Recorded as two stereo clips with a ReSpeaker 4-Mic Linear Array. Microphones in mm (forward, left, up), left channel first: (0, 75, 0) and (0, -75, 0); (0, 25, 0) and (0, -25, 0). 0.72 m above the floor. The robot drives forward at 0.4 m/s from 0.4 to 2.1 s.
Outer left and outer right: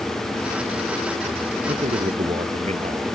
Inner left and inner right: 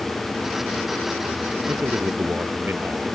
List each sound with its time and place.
1.7 s a man speaking: 45° right (ahead or behind)